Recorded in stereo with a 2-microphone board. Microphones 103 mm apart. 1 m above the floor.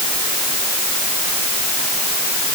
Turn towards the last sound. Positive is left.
No sound to turn to.